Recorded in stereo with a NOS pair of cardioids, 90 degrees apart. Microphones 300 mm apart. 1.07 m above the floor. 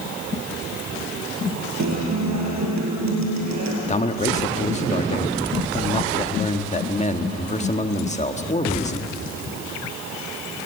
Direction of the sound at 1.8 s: 70° right.